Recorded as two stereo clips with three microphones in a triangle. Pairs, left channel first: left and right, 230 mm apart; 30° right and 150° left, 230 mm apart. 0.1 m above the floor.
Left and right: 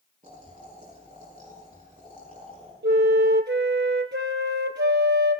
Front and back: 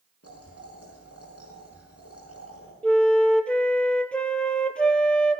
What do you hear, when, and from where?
0.2 s boiling: 30° right, 5.5 m
2.8 s a flute: 115° right, 0.7 m